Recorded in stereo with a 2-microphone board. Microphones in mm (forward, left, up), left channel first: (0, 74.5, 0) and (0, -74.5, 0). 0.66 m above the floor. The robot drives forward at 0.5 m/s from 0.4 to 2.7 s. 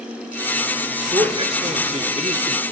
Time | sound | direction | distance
1.1 | a man speaking | 35° right (ahead or behind) | 1.9 m